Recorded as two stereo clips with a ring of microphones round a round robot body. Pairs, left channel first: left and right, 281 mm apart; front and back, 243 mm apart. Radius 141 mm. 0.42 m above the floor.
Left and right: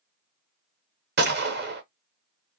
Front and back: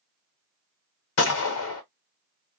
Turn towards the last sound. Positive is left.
turn(degrees=-40)